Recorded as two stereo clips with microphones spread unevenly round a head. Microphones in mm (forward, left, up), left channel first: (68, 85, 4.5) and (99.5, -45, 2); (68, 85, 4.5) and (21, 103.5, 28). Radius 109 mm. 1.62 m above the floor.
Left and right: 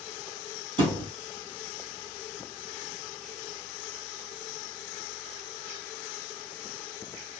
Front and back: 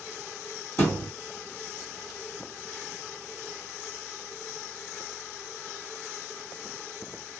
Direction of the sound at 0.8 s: 110° right.